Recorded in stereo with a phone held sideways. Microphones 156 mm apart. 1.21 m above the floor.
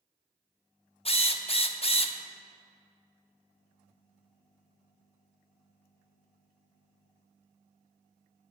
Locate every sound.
1.1 s a drill: 40° left (ahead or behind), 0.6 m